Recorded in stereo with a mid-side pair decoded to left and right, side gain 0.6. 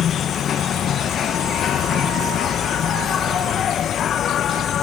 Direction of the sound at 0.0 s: 45° left.